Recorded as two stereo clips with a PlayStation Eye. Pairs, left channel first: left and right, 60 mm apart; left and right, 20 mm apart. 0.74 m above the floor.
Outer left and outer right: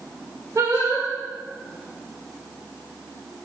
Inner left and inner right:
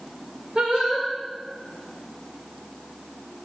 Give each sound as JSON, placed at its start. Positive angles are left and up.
{"t": 0.6, "sound": "singing", "side_deg": -60, "distance_m": 2.0}